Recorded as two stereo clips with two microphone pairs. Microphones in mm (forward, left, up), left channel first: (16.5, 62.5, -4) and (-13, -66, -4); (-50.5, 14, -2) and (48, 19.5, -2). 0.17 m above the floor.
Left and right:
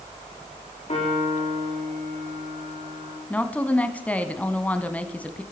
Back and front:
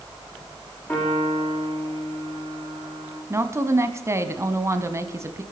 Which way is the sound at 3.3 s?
10° left.